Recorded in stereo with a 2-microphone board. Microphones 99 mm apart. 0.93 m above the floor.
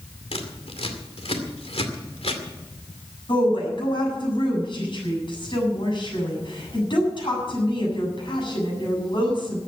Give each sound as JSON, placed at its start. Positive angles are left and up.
{"t": 0.3, "sound": "scissors", "side_deg": 80, "distance_m": 2.5}
{"t": 3.3, "sound": "a woman speaking", "side_deg": 55, "distance_m": 7.5}